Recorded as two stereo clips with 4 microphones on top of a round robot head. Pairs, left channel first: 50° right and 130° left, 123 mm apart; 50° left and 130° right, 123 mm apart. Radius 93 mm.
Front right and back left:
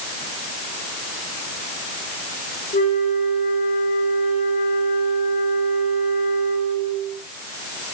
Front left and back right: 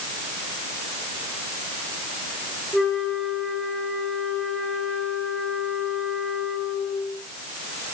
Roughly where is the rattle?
I don't hear a rattle.